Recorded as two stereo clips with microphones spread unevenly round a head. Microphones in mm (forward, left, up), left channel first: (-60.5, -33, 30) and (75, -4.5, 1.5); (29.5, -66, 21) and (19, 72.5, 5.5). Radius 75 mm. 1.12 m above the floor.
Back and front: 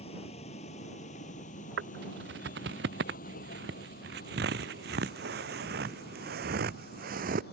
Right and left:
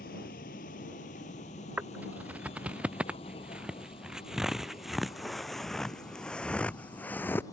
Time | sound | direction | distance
0.0 | a vehicle | 120° right | ?
1.8 | footsteps | 15° left | ?